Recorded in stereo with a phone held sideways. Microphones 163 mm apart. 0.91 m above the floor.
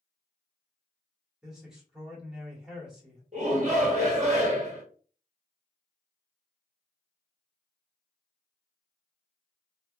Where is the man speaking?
5° right (ahead or behind), 1.6 m.